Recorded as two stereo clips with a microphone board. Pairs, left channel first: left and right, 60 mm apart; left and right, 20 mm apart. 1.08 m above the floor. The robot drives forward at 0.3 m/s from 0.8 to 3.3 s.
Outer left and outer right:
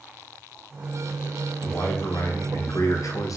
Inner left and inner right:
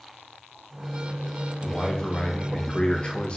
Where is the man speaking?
35° left (ahead or behind), 0.9 m; by 3.4 s 70° left (ahead or behind), 0.5 m.